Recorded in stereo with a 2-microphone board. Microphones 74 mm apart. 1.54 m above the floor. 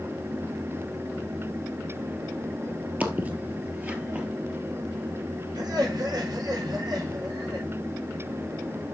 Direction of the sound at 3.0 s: 20° right (ahead or behind).